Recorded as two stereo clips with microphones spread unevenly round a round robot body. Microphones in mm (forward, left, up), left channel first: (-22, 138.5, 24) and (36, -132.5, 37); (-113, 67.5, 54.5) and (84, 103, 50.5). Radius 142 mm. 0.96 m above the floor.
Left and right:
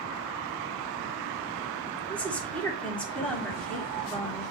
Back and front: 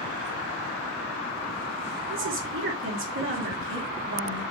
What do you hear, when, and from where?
2.1 s a woman speaking: 15° left, 3 m